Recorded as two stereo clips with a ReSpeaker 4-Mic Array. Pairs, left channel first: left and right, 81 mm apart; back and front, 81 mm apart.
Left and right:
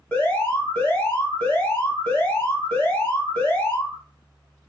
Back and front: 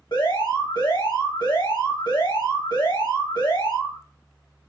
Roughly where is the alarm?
Behind.